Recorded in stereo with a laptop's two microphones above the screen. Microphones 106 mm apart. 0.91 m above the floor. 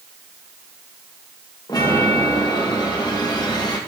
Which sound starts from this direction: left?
A chime, at 1.7 s.